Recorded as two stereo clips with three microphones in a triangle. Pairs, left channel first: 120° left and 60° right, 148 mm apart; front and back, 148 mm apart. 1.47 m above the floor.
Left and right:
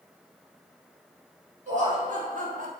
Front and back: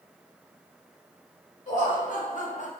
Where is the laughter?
30° right, 1.5 m; by 2.7 s 35° right, 0.5 m.